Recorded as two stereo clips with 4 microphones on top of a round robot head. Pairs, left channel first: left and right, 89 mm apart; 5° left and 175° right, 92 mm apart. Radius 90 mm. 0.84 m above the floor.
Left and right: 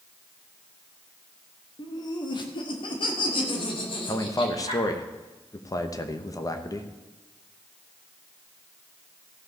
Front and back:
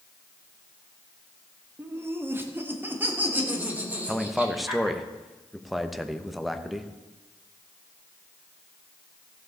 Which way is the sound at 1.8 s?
125° left.